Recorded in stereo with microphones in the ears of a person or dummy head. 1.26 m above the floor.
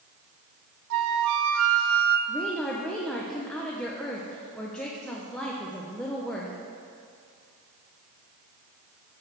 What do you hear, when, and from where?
0.9 s a flute: 65° right (ahead or behind), 0.6 m
2.3 s a woman speaking: 5° left (ahead or behind), 0.7 m